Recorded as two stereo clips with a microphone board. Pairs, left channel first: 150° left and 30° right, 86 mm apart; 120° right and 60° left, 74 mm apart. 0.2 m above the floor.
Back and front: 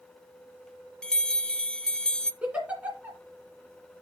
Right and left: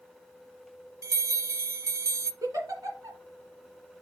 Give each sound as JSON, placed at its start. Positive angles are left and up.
{"t": 1.0, "sound": "a bell", "azimuth_deg": 75, "distance_m": 0.6}
{"t": 2.4, "sound": "a giggle", "azimuth_deg": 40, "distance_m": 2.0}